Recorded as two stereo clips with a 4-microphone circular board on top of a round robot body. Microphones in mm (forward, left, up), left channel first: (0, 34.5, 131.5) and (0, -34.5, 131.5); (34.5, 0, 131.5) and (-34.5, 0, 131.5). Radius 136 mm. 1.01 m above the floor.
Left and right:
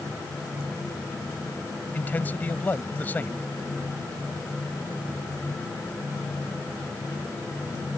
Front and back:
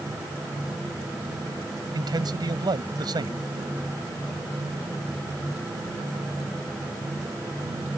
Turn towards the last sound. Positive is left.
turn(degrees=155)